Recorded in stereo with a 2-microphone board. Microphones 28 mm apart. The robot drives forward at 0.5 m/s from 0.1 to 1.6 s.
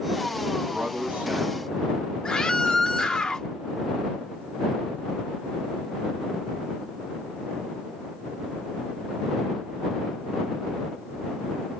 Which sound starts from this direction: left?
A scream, at 2.2 s.